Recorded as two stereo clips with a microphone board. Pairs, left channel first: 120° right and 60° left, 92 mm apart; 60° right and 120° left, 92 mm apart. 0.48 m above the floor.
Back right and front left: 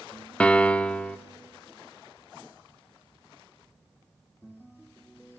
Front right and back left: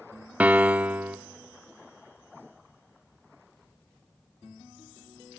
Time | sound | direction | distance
0.4 | a piano | 175° left | 0.7 m